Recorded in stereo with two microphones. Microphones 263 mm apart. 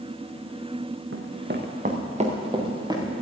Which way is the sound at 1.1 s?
50° right (ahead or behind).